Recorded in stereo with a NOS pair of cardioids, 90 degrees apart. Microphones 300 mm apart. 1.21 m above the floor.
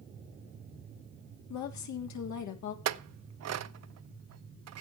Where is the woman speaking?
70° left, 3 m.